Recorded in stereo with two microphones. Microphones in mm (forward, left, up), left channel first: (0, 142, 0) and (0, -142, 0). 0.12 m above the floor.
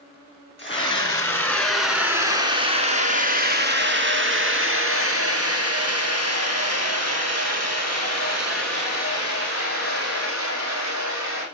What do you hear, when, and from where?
0.6 s a scream: 20° left (ahead or behind), 1.9 m; by 11.4 s 65° right (ahead or behind), 6 m